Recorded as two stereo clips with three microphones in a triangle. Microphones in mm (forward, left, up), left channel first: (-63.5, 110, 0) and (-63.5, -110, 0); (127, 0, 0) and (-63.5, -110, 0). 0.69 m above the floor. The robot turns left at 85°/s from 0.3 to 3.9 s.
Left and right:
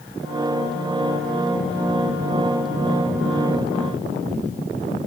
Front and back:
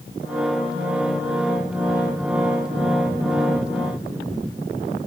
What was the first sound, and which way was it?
Only background noise.